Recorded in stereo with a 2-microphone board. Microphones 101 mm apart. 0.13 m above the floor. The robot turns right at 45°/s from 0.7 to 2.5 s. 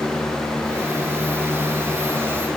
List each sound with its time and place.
Only background noise.